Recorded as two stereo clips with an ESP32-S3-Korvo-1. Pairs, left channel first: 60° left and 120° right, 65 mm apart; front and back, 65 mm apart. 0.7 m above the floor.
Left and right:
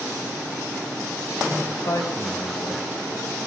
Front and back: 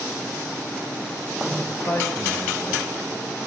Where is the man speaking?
45° left, 4 m.